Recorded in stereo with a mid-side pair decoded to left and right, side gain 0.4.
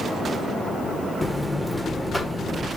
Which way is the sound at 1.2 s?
5° left.